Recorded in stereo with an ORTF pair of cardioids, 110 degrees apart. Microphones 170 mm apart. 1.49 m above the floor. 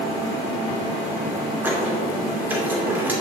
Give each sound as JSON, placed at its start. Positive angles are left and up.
{"t": 1.6, "sound": "a squeak", "azimuth_deg": -10, "distance_m": 2.5}